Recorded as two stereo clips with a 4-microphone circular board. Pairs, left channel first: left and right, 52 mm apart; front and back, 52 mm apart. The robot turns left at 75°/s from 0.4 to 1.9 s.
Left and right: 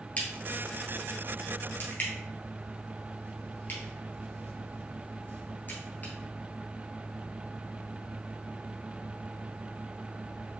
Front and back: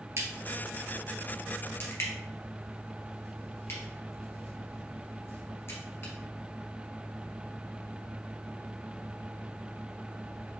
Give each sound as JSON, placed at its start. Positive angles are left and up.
{"t": 0.2, "sound": "a crack", "azimuth_deg": 150, "distance_m": 1.9}